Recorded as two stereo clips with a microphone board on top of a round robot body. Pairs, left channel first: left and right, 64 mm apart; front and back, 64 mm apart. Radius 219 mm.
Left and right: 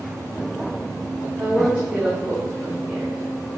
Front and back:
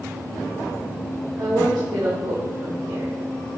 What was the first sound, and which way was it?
A woman speaking, 165° right.